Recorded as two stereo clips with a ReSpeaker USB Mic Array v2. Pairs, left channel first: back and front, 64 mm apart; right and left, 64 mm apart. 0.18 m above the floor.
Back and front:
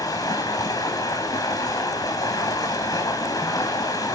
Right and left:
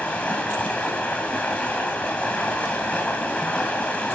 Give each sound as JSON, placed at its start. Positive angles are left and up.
{"t": 0.0, "sound": "running water", "azimuth_deg": -160, "distance_m": 1.8}